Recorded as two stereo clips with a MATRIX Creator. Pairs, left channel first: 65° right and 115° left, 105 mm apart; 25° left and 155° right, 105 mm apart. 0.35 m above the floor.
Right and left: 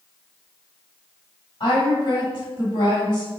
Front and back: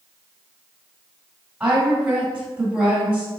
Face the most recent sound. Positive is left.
turn(degrees=-80)